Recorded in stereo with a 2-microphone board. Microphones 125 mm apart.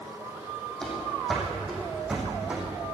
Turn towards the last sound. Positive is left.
turn(degrees=-10)  # may be behind; listen again after turning